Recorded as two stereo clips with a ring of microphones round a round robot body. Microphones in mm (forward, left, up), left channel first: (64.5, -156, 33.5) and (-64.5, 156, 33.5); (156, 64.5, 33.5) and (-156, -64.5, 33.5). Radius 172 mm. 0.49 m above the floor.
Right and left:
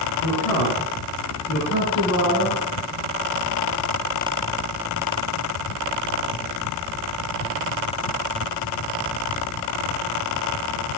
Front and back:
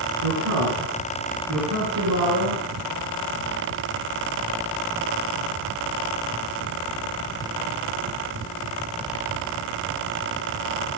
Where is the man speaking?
110° right, 7 m; by 2.6 s 130° right, 6 m.